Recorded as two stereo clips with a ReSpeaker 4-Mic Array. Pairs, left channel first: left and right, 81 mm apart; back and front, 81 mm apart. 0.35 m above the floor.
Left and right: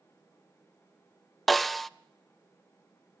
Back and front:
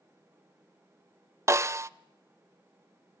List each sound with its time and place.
1.5 s a snare drum: 5° left, 0.5 m